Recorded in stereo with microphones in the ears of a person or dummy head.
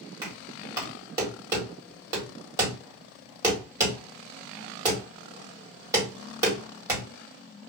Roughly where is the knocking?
Centre.